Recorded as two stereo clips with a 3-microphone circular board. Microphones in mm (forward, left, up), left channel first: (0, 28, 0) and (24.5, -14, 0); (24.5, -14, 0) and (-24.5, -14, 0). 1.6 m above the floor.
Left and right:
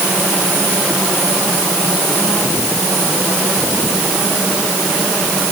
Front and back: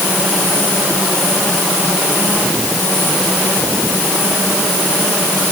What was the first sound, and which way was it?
Only background noise.